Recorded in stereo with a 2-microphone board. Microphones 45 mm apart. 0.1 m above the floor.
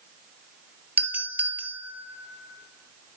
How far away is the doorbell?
About 3 m.